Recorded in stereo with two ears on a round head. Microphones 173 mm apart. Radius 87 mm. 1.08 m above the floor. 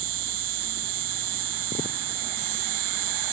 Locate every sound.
0.0 s an insect: 65° right (ahead or behind)